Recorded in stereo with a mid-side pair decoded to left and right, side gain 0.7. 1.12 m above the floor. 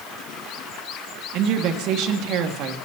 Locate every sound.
1.3 s a woman speaking: 60° right, 1.9 m